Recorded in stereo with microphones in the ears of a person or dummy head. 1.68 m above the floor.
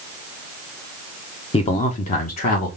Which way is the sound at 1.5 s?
30° left (ahead or behind).